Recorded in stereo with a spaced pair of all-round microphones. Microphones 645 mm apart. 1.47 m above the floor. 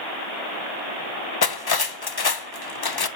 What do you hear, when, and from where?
1.4 s cutlery clinking: 35° left (ahead or behind), 0.6 m